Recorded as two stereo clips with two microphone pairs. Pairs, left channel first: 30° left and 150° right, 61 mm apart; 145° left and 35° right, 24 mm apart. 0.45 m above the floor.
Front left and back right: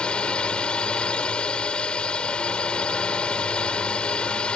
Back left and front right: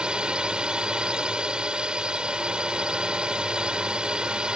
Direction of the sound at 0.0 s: 35° right.